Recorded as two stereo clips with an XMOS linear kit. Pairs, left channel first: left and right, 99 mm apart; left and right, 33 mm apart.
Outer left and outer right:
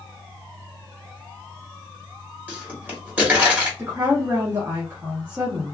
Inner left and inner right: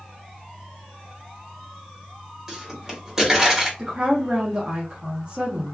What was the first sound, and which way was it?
A pop, 15° right (ahead or behind).